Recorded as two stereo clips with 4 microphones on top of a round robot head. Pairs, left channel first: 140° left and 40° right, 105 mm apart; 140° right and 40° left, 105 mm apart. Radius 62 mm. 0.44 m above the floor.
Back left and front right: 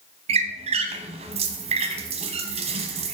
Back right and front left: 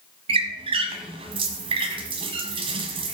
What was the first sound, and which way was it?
A squeak, 5° right.